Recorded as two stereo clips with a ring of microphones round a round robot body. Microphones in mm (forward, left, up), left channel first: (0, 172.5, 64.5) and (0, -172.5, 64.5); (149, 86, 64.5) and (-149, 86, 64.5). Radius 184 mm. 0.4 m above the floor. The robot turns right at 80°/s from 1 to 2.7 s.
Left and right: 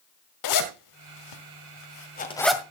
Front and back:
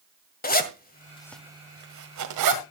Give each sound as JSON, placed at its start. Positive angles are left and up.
{"t": 0.4, "sound": "a zipper", "azimuth_deg": 60, "distance_m": 1.7}